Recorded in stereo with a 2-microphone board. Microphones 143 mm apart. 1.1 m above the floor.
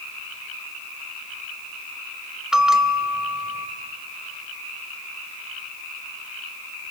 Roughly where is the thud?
I don't hear a thud.